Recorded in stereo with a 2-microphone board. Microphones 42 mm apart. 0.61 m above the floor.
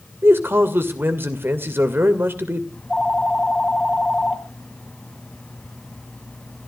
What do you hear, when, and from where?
0.2 s a man speaking: 65° right (ahead or behind), 2 m
2.7 s a phone ringing: 20° left (ahead or behind), 2.5 m